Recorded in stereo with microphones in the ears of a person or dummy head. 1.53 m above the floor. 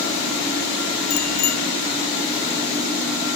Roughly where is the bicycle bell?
Left.